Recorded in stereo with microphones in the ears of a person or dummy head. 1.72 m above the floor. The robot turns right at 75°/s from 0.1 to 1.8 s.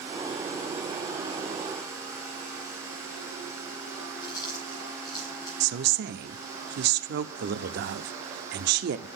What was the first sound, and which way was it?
Chewing, 25° left (ahead or behind).